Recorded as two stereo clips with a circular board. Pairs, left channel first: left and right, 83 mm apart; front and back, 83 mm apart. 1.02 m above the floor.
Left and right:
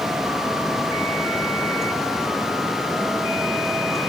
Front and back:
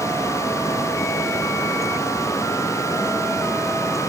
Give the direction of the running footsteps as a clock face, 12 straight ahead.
I don't hear running footsteps.